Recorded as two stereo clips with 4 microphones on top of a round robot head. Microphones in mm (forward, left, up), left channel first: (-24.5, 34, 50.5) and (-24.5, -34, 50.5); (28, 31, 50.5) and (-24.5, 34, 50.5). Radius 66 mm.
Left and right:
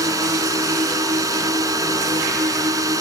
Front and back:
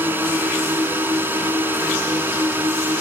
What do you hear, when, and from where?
0.0 s a drone: 125° right